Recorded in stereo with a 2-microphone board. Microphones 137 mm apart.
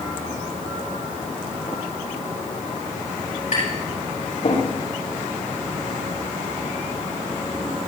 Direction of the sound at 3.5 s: 65° left (ahead or behind).